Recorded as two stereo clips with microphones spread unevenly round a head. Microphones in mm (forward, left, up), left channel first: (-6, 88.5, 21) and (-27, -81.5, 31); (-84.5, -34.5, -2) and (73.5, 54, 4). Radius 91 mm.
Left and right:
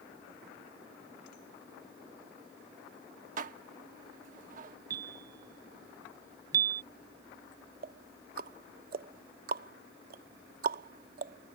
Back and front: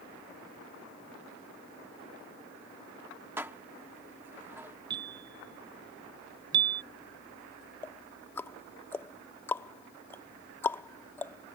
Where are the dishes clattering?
50° right.